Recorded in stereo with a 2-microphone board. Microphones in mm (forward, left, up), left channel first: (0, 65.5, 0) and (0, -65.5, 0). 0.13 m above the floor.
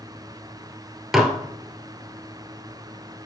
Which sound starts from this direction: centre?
Dishes clattering, at 1.1 s.